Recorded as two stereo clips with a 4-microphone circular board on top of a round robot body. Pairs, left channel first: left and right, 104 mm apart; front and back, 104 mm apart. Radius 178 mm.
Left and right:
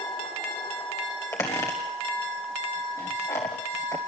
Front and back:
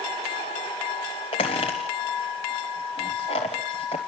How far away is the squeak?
About 0.8 m.